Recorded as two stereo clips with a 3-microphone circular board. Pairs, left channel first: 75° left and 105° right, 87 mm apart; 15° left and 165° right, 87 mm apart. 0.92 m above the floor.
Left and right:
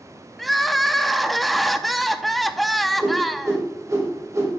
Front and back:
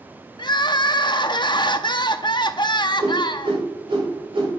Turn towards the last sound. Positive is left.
turn(degrees=-155)